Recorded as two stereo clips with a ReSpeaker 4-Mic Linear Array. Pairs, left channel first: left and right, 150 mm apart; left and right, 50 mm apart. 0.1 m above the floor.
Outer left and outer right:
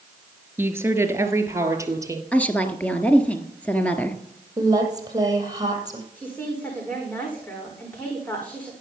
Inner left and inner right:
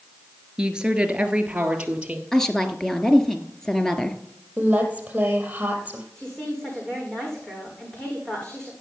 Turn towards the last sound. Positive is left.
turn(degrees=10)  # may be behind; listen again after turning